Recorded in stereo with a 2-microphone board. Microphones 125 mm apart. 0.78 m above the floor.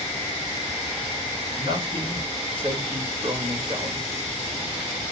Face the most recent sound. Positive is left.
turn(degrees=-45)  # may be behind; listen again after turning